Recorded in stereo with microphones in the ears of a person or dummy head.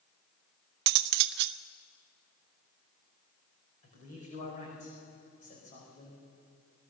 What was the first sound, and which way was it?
Cutlery clinking, 60° right (ahead or behind).